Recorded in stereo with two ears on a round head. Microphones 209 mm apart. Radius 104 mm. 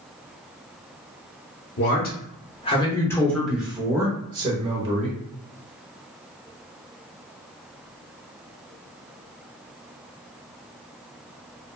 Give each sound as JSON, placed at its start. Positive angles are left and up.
{"t": 1.8, "sound": "a man speaking", "side_deg": 50, "distance_m": 1.0}